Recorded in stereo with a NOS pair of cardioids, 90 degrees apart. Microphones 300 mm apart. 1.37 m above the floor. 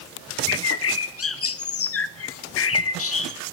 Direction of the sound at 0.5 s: 55° left.